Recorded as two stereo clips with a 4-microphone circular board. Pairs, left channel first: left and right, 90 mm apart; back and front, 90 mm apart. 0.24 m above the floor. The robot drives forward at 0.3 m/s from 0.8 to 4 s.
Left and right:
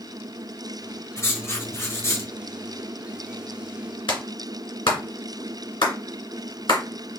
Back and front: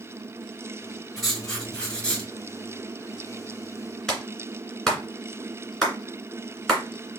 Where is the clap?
95° left, 2 m.